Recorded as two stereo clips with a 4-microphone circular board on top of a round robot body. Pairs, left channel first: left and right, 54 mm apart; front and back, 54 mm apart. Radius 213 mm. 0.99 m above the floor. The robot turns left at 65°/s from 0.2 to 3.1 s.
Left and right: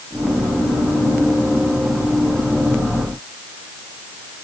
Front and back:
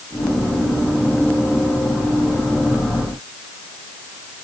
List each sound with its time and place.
Only background noise.